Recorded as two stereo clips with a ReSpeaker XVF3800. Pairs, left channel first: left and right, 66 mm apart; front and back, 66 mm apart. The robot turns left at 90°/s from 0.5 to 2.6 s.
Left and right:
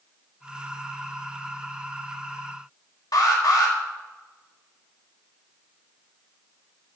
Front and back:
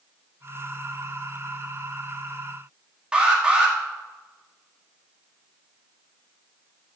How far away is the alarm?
About 2.0 m.